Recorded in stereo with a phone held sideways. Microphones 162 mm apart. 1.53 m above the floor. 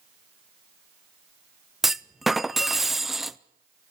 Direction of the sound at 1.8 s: Centre (ahead or behind).